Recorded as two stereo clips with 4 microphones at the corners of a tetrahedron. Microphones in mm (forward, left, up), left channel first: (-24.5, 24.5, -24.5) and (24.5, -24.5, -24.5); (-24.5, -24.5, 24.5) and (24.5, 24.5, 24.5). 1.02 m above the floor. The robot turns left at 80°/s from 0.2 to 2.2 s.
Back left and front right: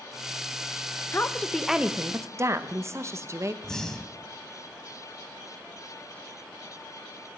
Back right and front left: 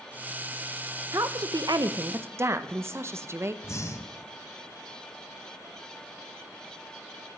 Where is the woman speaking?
85° left, 0.6 m; by 3.5 s 5° right, 0.6 m.